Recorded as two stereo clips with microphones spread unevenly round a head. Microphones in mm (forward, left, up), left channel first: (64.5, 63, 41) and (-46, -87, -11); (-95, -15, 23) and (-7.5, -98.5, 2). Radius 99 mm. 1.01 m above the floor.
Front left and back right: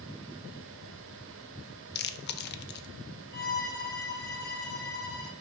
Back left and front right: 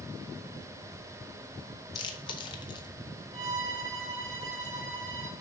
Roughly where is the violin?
Ahead.